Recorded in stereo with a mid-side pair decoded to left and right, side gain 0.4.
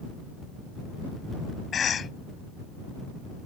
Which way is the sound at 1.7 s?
55° left.